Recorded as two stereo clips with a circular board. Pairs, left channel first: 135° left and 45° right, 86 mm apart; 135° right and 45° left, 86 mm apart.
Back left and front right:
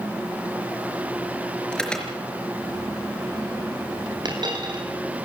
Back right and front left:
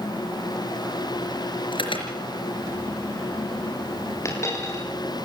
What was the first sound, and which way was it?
An alarm, 145° right.